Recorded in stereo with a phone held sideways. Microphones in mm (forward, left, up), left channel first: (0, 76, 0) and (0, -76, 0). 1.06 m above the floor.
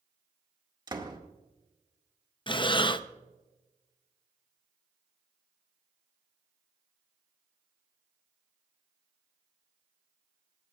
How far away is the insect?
I don't hear an insect.